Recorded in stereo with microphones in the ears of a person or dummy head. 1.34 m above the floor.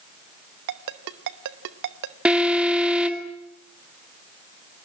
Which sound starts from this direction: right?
A ringtone, at 0.7 s.